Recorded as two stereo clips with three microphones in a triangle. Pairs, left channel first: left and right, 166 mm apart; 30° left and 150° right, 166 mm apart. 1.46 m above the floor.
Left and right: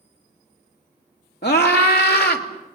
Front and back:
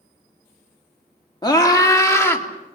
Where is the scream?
95° left, 2.5 m; by 2.5 s 105° left, 3 m.